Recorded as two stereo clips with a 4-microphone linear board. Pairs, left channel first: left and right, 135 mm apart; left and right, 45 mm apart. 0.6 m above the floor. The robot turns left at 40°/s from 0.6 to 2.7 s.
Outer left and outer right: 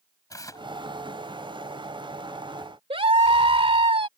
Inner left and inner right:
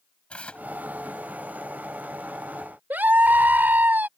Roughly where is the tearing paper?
Left.